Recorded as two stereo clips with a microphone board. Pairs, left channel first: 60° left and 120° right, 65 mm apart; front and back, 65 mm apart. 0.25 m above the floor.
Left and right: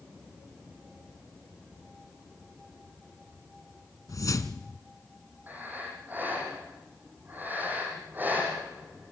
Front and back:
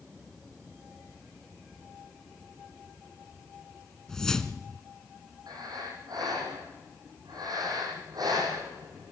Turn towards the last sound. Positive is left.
turn(degrees=180)